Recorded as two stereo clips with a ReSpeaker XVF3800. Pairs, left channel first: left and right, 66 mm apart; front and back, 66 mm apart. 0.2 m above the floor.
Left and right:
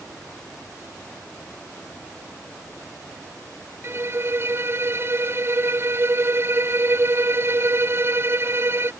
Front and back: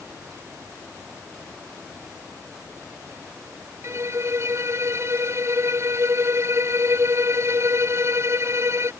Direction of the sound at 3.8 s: 140° right.